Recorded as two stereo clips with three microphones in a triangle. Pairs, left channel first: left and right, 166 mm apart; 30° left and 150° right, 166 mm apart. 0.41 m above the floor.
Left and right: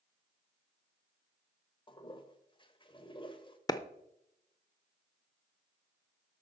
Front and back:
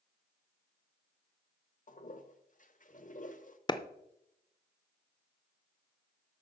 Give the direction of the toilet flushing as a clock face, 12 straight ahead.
11 o'clock.